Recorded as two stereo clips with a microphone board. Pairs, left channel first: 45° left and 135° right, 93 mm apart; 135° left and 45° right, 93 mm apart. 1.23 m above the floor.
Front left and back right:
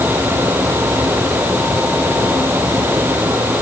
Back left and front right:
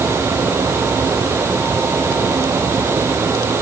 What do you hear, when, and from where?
Only background noise.